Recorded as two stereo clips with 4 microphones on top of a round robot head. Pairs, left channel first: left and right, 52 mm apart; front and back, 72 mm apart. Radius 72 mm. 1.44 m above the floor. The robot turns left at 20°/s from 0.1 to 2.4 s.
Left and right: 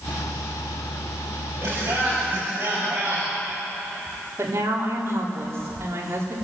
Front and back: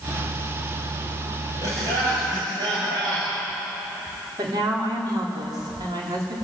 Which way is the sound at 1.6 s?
140° right.